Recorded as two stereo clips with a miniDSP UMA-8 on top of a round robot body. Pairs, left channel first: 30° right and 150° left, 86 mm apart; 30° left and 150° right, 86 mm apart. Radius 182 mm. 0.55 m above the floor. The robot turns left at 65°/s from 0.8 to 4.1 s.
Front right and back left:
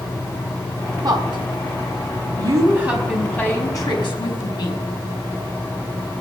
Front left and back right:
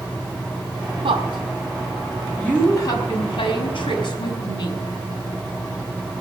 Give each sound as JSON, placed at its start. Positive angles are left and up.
{"t": 1.0, "sound": "a woman speaking", "azimuth_deg": -165, "distance_m": 5.0}